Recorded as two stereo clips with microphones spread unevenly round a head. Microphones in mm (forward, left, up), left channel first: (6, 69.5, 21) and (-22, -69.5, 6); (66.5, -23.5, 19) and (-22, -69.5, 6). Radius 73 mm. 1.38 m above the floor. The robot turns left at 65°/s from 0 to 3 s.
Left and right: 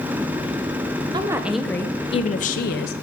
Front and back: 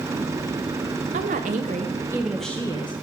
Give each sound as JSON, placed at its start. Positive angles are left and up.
{"t": 1.1, "sound": "a woman speaking", "azimuth_deg": -165, "distance_m": 0.6}